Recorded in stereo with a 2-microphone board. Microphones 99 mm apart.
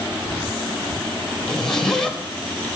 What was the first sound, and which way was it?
A zipper, 5° left (ahead or behind).